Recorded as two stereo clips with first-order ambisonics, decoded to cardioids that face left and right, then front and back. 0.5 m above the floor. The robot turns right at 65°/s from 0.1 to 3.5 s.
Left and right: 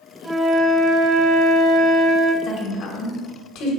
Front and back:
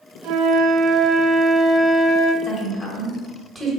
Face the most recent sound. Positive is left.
turn(degrees=100)